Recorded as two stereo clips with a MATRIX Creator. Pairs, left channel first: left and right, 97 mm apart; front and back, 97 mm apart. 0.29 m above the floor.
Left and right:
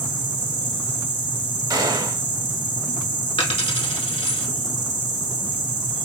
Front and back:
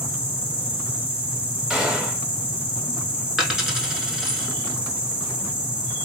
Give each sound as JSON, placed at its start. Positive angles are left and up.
{"t": 0.0, "sound": "an insect", "azimuth_deg": -105, "distance_m": 1.0}
{"t": 1.7, "sound": "a gunshot", "azimuth_deg": -100, "distance_m": 0.7}
{"t": 3.4, "sound": "a dropped coin", "azimuth_deg": 95, "distance_m": 0.8}